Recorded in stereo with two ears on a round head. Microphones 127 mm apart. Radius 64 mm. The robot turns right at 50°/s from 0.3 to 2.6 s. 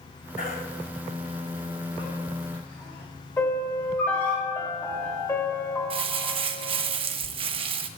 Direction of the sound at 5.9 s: 45° right (ahead or behind).